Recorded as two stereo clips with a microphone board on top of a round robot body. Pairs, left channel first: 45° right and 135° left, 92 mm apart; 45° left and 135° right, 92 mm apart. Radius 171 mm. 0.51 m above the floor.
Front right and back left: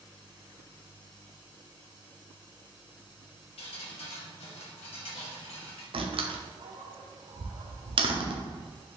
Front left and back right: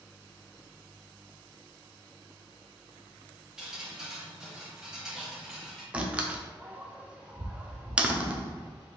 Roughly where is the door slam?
Behind left.